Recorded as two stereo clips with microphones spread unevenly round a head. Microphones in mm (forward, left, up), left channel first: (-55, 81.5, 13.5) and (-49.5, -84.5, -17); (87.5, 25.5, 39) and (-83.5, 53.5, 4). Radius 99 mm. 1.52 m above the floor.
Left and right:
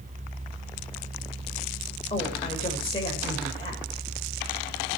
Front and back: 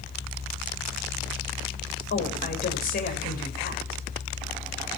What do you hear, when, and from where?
2.1 s a woman speaking: 25° left, 7 m